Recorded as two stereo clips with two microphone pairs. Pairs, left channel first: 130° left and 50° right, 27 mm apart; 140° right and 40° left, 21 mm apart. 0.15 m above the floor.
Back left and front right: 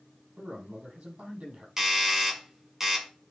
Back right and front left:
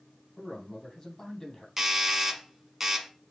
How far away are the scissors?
I don't hear scissors.